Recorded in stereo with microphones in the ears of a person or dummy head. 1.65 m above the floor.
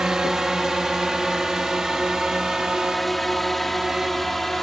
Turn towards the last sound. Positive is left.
turn(degrees=0)  # may be behind; listen again after turning